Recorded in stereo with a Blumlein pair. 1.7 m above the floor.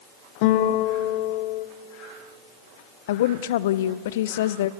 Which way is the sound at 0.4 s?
45° left.